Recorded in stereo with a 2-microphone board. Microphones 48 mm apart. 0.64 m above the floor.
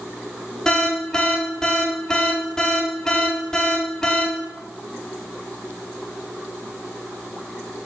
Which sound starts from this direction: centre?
An alarm, at 0.7 s.